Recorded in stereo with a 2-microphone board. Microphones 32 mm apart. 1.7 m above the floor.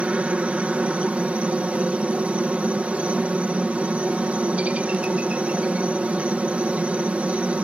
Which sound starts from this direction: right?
A helicopter, at 0.0 s.